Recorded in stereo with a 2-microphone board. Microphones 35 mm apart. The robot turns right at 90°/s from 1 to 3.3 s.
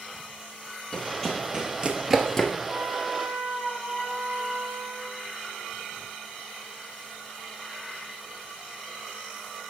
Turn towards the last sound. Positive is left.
turn(degrees=15)